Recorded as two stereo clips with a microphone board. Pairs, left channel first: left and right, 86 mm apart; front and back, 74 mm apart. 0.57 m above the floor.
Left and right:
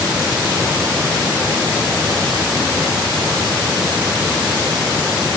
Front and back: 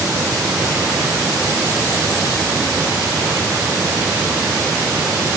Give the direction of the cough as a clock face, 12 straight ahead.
I don't hear a cough.